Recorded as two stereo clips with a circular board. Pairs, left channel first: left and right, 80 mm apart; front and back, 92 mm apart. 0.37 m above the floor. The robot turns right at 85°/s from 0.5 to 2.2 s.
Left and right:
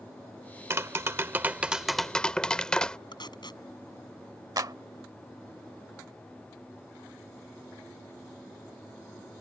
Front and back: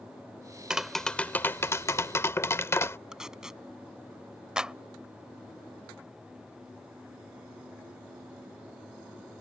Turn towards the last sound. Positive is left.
turn(degrees=-100)